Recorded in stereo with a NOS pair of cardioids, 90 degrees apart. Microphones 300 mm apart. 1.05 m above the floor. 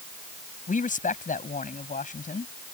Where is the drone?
No drone in this recording.